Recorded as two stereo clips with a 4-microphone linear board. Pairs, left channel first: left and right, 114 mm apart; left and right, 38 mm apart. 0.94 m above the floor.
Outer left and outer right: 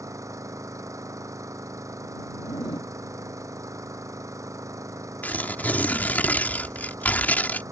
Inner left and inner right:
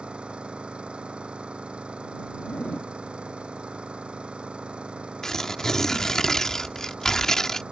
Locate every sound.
0.0 s an engine running: 30° right (ahead or behind)
2.4 s a zipper: 40° left (ahead or behind)
5.2 s tearing paper: 15° left (ahead or behind)